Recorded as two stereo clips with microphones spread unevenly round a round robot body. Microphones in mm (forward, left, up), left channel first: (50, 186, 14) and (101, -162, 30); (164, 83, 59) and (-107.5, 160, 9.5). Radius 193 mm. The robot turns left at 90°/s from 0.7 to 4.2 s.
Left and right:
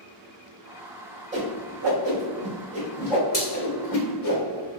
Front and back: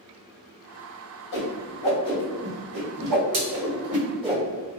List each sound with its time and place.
1.3 s a whoosh: 10° right, 1.7 m; by 4.8 s 90° left, 1.7 m